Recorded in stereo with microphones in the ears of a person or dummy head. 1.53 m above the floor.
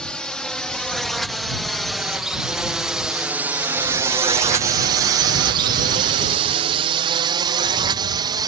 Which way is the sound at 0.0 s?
10° left (ahead or behind).